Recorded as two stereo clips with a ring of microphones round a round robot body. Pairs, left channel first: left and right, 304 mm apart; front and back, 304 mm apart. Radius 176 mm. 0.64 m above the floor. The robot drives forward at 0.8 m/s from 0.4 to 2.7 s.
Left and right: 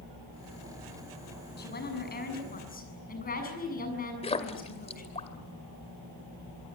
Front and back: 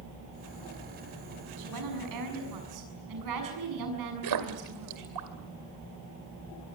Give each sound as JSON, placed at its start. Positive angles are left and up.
{"t": 1.6, "sound": "a woman speaking", "azimuth_deg": 150, "distance_m": 6.5}
{"t": 4.2, "sound": "a splash", "azimuth_deg": 160, "distance_m": 1.8}